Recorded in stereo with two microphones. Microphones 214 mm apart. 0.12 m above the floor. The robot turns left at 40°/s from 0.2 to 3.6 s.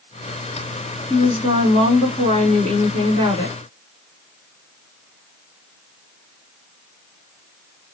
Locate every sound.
1.1 s a woman speaking: 20° right (ahead or behind), 1.2 m